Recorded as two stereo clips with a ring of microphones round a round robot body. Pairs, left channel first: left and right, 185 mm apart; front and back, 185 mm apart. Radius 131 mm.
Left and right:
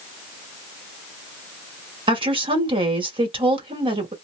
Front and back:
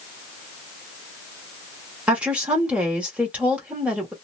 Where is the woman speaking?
105° right, 1.0 m.